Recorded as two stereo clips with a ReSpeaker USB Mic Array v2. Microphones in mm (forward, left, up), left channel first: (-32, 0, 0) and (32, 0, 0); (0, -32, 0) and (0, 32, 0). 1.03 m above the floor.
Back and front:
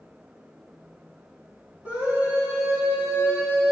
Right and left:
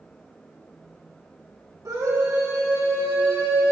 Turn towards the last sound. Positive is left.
turn(degrees=50)